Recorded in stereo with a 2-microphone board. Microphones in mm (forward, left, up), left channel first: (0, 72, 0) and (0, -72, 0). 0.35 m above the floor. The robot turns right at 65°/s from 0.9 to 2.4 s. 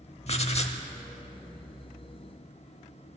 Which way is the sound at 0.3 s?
50° left (ahead or behind).